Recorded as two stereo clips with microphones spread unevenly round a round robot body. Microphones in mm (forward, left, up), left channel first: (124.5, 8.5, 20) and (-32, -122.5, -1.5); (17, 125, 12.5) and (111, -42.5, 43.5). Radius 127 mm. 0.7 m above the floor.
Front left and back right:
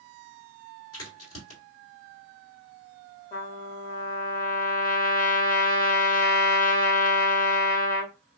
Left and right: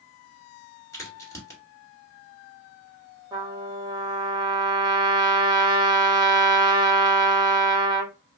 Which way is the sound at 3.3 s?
10° left.